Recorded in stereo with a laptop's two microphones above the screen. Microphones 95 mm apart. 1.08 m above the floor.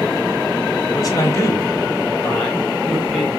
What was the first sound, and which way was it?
A man speaking, 40° left (ahead or behind).